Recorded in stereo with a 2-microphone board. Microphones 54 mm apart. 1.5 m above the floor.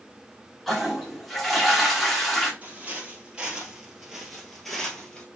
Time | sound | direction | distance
0.7 | a toilet flushing | centre (ahead or behind) | 1.4 m
2.6 | footsteps | 30° right (ahead or behind) | 1.7 m